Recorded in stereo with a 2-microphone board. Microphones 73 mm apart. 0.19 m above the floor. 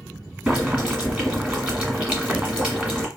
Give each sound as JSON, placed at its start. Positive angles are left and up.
{"t": 0.5, "sound": "boiling", "side_deg": -15, "distance_m": 1.3}